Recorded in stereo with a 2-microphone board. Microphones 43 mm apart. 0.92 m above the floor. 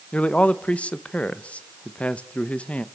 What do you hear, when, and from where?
0.1 s a man speaking: 30° left (ahead or behind), 0.9 m